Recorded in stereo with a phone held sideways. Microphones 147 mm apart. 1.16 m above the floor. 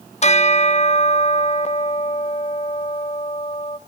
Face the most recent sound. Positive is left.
turn(degrees=50)  # may be behind; listen again after turning